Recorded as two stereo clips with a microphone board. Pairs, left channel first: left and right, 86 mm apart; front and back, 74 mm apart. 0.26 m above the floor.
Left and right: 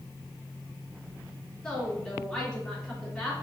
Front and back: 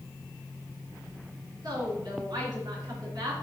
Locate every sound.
1.6 s a woman speaking: straight behind, 3.5 m